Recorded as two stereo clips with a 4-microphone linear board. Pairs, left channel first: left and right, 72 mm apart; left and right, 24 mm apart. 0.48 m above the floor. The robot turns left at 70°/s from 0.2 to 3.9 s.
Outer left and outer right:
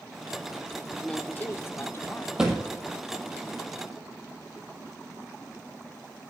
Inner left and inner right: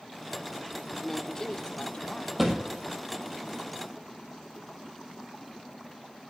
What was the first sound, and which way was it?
A woman speaking, 155° left.